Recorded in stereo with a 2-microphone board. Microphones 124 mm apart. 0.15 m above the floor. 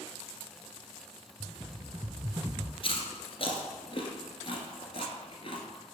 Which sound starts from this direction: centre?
A rattle, at 1.4 s.